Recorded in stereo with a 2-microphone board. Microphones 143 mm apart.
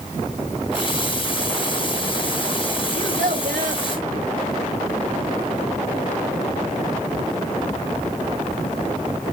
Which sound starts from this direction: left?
A running tap, at 0.7 s.